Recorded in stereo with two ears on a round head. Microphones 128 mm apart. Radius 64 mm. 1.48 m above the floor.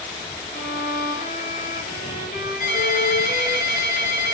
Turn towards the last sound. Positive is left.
turn(degrees=65)  # may be behind; listen again after turning